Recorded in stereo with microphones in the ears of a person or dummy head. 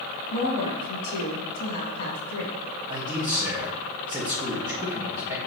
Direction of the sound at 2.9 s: 10° right (ahead or behind).